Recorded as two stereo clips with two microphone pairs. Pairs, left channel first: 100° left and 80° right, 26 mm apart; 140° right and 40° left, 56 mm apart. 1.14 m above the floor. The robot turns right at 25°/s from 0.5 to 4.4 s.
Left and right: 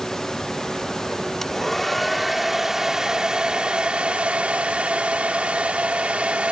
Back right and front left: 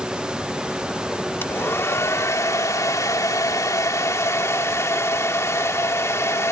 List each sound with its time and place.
1.4 s a hair dryer: 175° left; by 6.5 s 110° right